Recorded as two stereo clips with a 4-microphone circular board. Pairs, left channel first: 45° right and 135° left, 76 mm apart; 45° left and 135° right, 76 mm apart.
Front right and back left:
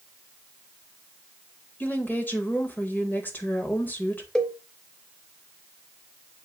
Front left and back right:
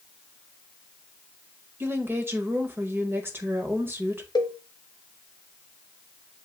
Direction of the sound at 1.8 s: 95° right.